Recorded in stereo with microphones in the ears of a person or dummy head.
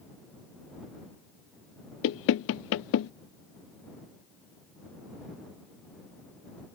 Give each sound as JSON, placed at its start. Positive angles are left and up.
{"t": 2.0, "sound": "knocking", "side_deg": 70}